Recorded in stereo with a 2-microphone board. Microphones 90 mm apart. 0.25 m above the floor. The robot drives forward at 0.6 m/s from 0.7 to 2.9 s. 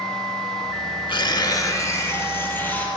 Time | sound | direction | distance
1.1 | tearing paper | 65° left (ahead or behind) | 0.5 m